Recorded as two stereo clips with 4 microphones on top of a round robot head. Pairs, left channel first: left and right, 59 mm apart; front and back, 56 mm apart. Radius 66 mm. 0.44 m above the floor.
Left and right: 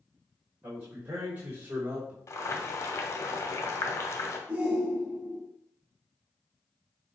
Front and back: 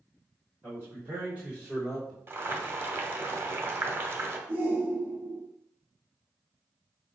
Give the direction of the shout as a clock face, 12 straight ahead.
5 o'clock.